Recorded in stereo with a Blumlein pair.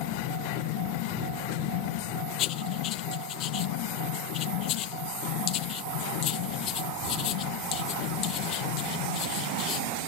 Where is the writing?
35° left.